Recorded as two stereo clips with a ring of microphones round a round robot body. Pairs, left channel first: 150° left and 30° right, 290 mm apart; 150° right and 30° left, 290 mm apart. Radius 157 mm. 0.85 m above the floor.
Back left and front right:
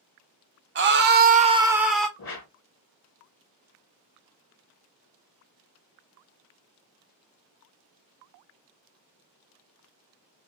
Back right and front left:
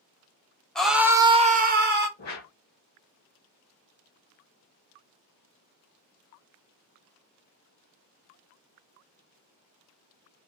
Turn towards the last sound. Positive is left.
turn(degrees=170)